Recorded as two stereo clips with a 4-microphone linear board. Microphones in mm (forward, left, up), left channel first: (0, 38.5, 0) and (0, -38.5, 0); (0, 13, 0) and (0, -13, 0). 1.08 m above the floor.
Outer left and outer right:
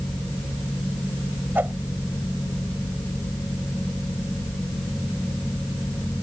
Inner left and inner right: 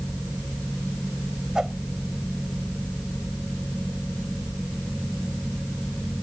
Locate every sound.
1.6 s a whoosh: 25° right (ahead or behind)